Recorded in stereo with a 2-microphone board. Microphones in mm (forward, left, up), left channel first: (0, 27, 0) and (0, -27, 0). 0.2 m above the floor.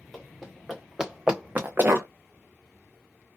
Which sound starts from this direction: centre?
Running footsteps, at 0.1 s.